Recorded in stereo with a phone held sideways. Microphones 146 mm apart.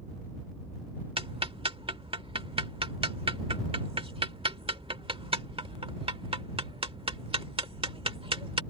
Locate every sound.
1.2 s ticking: 40° right (ahead or behind)